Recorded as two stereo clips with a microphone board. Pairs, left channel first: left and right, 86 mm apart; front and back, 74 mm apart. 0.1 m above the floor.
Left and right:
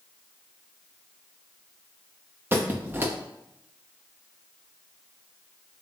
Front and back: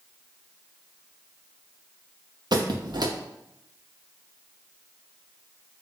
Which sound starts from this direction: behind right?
A squeak, at 2.5 s.